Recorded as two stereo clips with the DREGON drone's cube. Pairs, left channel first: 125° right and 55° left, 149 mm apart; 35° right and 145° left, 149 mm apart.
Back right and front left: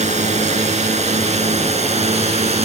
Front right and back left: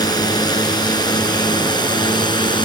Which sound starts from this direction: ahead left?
A drone, at 0.0 s.